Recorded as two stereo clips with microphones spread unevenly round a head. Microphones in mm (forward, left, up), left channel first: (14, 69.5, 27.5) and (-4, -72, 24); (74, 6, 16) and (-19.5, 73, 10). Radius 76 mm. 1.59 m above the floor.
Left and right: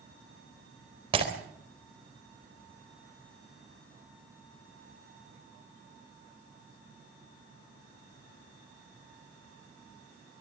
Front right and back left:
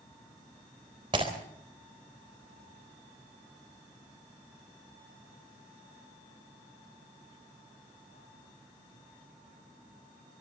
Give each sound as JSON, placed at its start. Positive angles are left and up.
{"t": 1.1, "sound": "breaking glass", "azimuth_deg": -155, "distance_m": 3.5}